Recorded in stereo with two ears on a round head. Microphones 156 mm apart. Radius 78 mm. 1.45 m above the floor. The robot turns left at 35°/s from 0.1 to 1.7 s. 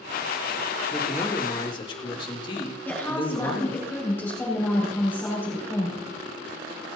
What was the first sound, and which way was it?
A man speaking, centre (ahead or behind).